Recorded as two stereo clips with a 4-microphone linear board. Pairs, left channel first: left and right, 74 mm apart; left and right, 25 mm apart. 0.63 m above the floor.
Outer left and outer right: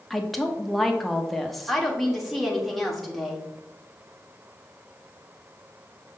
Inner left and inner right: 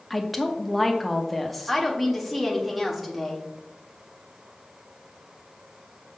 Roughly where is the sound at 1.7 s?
Centre.